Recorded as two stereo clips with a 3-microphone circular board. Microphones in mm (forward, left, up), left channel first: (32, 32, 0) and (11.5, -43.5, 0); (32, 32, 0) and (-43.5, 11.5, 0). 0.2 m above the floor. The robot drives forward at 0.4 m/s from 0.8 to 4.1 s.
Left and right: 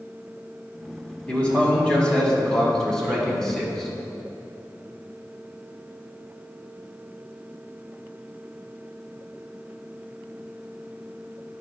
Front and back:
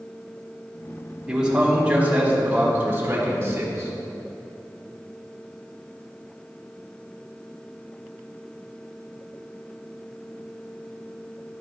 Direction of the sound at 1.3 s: 120° left.